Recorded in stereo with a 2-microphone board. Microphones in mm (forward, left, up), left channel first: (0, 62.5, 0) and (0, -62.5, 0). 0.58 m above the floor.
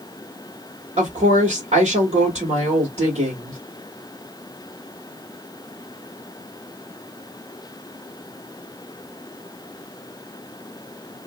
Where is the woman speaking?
65° right (ahead or behind), 1.6 m.